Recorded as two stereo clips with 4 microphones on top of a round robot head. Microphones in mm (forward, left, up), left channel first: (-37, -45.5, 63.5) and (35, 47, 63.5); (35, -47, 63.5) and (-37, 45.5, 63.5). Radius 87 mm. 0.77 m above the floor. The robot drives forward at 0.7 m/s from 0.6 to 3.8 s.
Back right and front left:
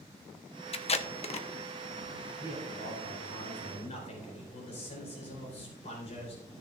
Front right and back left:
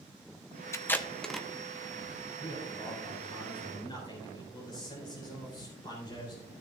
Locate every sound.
0.7 s tape being pulled: 115° right, 0.8 m; by 1.5 s 140° right, 1.1 m
2.4 s a man speaking: 85° right, 3.5 m; by 6.4 s 100° right, 3.5 m